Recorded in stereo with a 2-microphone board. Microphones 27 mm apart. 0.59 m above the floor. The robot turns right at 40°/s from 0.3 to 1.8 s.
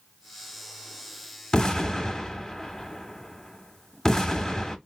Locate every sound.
1.5 s an explosion: 30° left (ahead or behind), 0.7 m; by 4.8 s 20° left (ahead or behind), 0.7 m